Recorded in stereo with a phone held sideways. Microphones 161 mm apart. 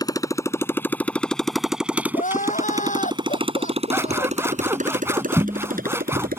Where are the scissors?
15° right (ahead or behind).